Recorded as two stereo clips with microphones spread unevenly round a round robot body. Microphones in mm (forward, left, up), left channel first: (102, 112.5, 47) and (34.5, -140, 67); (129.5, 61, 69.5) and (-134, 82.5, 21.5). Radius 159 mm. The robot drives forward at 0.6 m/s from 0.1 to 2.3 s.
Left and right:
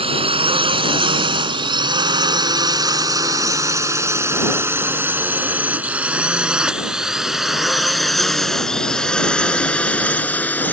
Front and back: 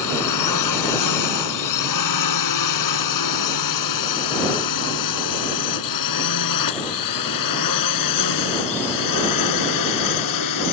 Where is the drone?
35° right; by 10.7 s 10° right.